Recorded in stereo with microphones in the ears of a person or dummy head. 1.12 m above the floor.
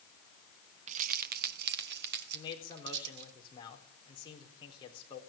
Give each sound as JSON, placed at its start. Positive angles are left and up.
{"t": 0.9, "sound": "keys jangling", "side_deg": -40, "distance_m": 0.6}
{"t": 2.3, "sound": "a man speaking", "side_deg": 30, "distance_m": 4.0}